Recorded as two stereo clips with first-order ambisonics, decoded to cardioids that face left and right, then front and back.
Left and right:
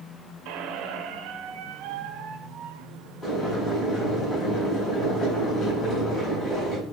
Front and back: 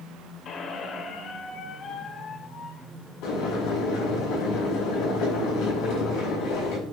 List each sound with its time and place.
0.5 s a squeak: 60° right, 0.9 m
3.2 s boiling: 20° left, 4.5 m